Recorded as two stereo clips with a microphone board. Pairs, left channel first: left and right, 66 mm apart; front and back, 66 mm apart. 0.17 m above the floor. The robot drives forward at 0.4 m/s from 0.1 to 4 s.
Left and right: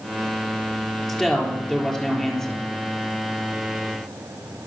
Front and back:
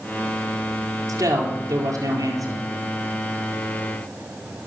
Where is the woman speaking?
170° left, 4.5 m.